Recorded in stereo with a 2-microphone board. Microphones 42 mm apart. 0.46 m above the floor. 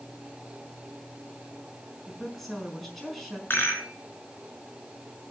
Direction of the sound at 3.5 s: 55° left (ahead or behind).